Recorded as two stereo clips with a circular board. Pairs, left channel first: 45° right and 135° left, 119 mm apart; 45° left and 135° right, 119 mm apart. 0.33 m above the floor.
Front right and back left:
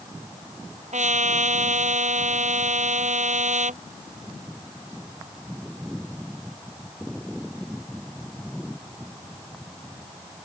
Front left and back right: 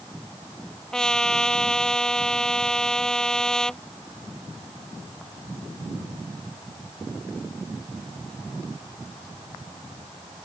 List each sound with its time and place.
0.9 s a trumpet: 130° left